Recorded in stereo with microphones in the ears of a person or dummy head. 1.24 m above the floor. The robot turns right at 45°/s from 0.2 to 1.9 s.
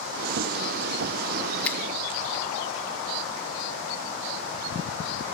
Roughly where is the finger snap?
Centre.